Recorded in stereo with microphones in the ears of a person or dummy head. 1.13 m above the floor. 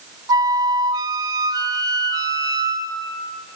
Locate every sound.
0.3 s a flute: 25° right (ahead or behind), 0.6 m